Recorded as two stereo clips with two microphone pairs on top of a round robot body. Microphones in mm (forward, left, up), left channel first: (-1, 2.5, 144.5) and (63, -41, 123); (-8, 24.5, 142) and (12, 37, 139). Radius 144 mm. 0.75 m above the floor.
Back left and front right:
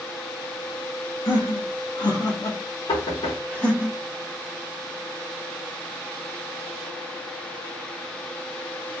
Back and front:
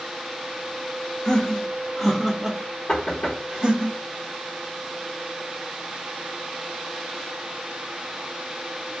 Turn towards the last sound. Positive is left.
turn(degrees=155)